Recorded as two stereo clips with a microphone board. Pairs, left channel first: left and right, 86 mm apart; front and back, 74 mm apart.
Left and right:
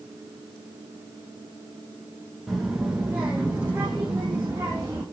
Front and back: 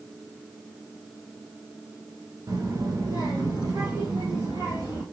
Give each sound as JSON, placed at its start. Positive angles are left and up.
{"t": 2.5, "sound": "a child speaking", "azimuth_deg": 180, "distance_m": 1.0}